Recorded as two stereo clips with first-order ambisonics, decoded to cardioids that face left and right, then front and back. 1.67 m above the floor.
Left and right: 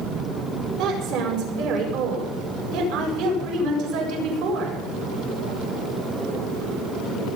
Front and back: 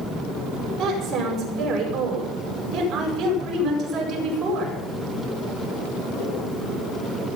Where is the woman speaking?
115° right, 8 m.